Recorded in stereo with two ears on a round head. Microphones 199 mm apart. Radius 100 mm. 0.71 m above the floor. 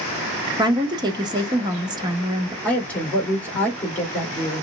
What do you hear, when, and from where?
0.6 s a woman speaking: 20° right (ahead or behind), 0.7 m
2.6 s a woman speaking: 5° left (ahead or behind), 2.0 m